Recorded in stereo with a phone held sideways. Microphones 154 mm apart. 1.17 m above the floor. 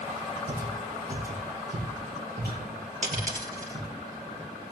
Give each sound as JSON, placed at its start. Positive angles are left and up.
{"t": 0.5, "sound": "footsteps", "side_deg": -60, "distance_m": 3.5}
{"t": 3.0, "sound": "a dropped coin", "side_deg": -55, "distance_m": 3.0}